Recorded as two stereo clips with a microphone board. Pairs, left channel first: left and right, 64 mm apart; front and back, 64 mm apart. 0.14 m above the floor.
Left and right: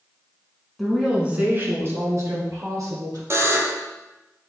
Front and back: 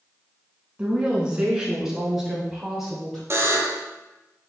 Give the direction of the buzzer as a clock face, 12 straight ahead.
4 o'clock.